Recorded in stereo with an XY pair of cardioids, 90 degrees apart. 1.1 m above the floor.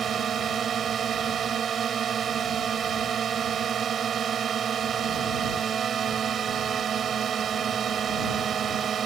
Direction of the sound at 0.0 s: 60° right.